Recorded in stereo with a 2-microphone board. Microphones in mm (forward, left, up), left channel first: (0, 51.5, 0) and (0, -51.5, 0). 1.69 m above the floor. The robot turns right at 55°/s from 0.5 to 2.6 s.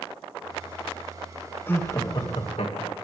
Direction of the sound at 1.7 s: 20° left.